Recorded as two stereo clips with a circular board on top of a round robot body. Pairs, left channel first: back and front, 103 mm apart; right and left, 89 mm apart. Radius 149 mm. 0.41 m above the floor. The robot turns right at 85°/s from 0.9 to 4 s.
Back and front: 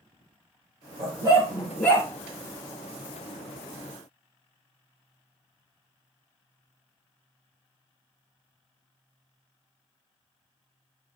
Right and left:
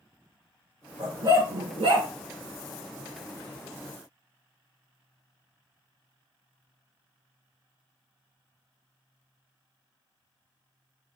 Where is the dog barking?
30° left, 2.5 m; by 2.1 s 125° left, 2.5 m.